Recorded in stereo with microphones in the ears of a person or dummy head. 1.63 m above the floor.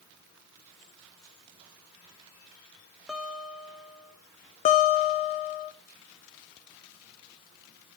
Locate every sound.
3.1 s a guitar: centre (ahead or behind), 1.0 m
4.7 s a guitar: 40° left (ahead or behind), 0.9 m